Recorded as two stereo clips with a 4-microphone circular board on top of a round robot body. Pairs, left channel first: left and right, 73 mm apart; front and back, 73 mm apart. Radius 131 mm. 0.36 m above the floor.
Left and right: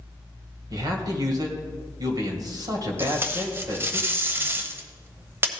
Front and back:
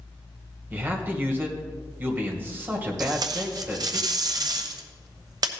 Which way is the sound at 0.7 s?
115° right.